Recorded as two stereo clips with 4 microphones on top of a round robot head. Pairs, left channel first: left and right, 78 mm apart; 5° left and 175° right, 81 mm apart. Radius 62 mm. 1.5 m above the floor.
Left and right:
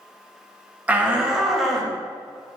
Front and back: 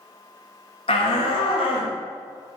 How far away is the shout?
About 1.8 m.